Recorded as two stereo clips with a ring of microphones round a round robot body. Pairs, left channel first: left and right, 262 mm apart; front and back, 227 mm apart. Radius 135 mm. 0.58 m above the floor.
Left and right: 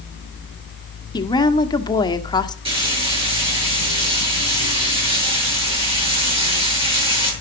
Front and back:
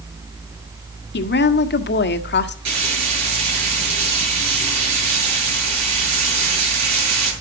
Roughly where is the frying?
Behind.